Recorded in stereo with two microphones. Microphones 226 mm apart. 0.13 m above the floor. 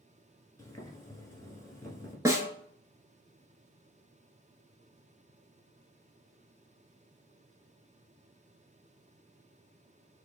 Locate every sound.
0.6 s boiling: 15° left (ahead or behind), 1.1 m
2.2 s a snare drum: 15° right (ahead or behind), 0.6 m